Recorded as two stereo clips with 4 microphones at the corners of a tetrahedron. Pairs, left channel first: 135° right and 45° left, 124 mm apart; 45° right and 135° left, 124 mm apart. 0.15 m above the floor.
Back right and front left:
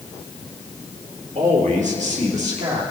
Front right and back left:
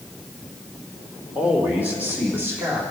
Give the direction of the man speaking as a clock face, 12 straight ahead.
10 o'clock.